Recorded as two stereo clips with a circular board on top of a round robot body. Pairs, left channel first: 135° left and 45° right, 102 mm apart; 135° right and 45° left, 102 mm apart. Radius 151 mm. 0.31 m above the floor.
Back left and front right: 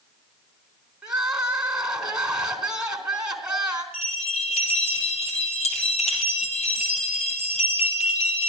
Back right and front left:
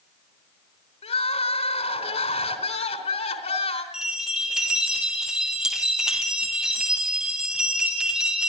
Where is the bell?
130° left, 3.5 m.